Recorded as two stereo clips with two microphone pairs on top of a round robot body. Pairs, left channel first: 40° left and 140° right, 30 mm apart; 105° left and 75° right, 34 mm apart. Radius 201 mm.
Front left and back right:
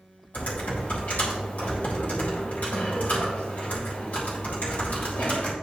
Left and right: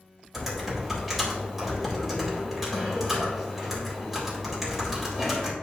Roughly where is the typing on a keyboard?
Ahead.